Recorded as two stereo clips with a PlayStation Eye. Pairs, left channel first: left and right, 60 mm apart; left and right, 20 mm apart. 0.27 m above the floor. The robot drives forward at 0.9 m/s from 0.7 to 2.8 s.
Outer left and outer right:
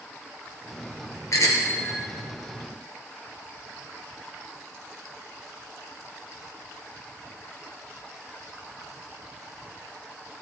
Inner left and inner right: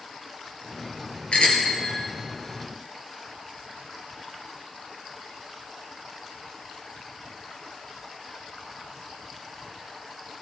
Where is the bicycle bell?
65° left (ahead or behind), 3.5 m; by 2.1 s 55° left (ahead or behind), 4 m.